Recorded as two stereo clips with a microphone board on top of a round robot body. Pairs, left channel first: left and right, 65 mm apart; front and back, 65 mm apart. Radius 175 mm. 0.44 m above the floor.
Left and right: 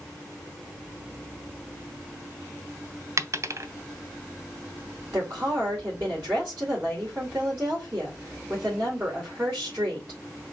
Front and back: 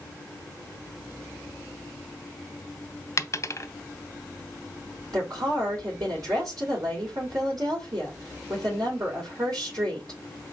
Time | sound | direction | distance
3.2 | a dropped coin | 45° right | 0.6 m
5.1 | a woman speaking | 160° right | 2.5 m